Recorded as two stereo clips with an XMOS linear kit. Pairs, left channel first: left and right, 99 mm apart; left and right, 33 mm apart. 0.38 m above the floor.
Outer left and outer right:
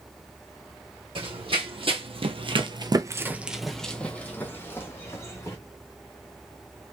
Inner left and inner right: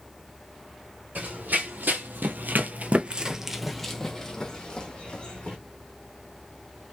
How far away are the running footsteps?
About 1.2 m.